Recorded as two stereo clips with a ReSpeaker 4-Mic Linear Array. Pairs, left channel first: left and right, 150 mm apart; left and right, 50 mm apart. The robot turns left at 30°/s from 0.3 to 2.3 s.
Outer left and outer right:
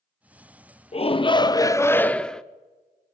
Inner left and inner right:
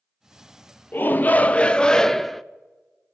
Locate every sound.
0.9 s a shout: 45° left, 0.5 m; by 2.4 s 5° left, 0.5 m